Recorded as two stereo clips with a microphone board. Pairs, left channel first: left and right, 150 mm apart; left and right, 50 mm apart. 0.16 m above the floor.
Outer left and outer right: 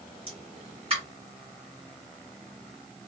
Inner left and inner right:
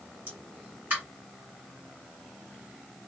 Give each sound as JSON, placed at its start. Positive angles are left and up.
{"t": 0.3, "sound": "a pop", "side_deg": -40, "distance_m": 2.0}